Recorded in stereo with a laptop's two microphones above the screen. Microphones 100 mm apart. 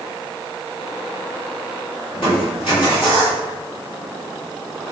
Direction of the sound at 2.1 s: 60° left (ahead or behind).